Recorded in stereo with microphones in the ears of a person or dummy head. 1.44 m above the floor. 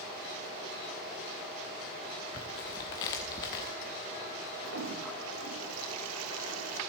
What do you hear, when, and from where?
2.3 s tearing paper: 20° left (ahead or behind), 0.9 m
4.6 s a toilet flushing: 80° right, 0.7 m